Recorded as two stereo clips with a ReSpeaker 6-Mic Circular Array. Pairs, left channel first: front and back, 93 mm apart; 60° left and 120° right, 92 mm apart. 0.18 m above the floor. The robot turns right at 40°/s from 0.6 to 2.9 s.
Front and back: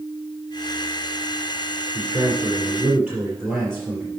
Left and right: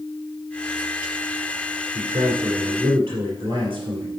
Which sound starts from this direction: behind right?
A man speaking, at 1.9 s.